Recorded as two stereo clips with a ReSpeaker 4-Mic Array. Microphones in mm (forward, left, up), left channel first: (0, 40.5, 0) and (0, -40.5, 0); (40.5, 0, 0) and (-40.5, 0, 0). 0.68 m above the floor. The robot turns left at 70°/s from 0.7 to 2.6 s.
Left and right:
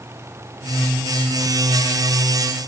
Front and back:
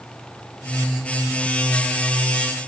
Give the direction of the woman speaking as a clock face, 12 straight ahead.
I don't hear a woman speaking.